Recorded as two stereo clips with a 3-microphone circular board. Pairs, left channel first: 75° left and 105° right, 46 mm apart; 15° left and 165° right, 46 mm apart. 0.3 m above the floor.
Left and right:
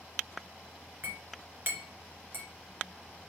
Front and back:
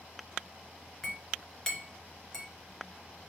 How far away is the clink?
About 2 m.